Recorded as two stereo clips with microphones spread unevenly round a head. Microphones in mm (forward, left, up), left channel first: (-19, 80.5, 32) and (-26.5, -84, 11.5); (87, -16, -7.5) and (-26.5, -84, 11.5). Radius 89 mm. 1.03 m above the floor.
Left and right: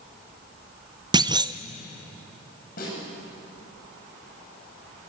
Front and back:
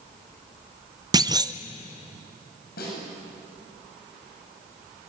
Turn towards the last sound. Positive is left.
turn(degrees=45)